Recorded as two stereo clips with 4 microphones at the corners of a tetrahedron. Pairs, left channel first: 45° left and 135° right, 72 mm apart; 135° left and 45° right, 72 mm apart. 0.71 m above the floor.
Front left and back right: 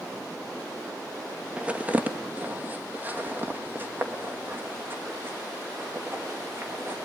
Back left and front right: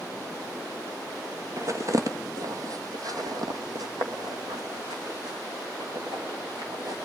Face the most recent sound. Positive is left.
turn(degrees=-75)